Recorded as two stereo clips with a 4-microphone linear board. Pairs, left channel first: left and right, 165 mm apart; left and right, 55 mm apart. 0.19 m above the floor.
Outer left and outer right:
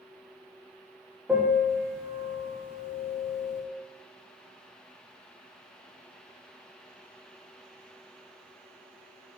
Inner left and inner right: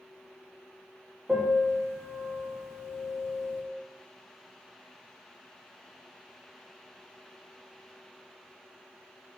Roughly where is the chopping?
No chopping in this recording.